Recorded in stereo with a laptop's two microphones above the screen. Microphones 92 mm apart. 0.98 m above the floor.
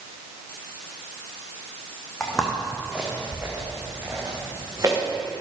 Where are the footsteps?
5° left (ahead or behind), 3.5 m; by 5.0 s 35° right (ahead or behind), 6 m.